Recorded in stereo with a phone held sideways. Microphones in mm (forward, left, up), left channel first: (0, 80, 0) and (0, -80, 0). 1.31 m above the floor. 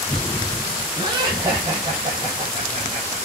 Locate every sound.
1.0 s laughter: 30° right (ahead or behind), 6.5 m; by 3.2 s 40° right (ahead or behind), 5.5 m